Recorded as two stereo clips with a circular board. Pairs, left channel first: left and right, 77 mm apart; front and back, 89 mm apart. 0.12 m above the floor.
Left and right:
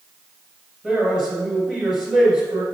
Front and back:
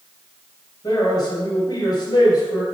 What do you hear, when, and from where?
0.8 s a man speaking: 15° right, 2 m